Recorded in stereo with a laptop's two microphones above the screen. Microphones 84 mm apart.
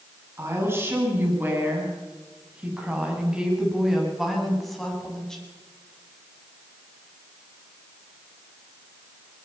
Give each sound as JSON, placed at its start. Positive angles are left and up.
{"t": 0.4, "sound": "a woman speaking", "side_deg": -30, "distance_m": 8.5}